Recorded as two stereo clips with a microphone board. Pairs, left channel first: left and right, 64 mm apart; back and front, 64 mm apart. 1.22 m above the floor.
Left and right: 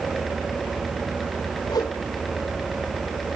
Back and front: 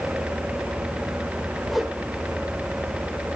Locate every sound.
1.7 s a whoosh: 90° left, 2 m